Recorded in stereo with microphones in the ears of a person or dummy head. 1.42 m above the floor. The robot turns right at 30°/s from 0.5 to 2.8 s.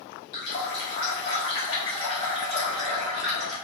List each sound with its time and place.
0.3 s a running tap: 115° left, 0.6 m; by 3.5 s 175° right, 0.6 m